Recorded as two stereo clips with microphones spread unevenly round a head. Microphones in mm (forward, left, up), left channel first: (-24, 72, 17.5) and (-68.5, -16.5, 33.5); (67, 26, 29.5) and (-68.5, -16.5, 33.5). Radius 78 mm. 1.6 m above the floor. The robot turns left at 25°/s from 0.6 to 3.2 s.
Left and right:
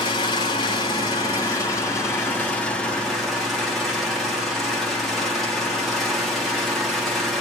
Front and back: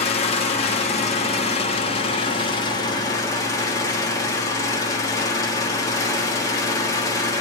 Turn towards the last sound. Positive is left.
turn(degrees=-40)